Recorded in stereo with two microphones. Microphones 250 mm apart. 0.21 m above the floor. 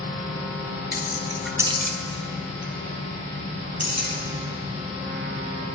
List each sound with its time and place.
0.9 s keys jangling: 40° left (ahead or behind), 1.3 m; by 4.1 s 75° right (ahead or behind), 4 m